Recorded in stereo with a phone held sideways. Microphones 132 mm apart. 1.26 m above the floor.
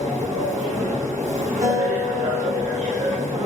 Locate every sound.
0.0 s a machine running: 65° right (ahead or behind), 1.2 m
1.6 s a guitar: 70° right (ahead or behind), 1.5 m